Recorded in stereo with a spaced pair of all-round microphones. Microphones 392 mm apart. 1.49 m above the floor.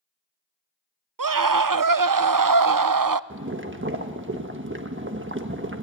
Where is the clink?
No clink in this recording.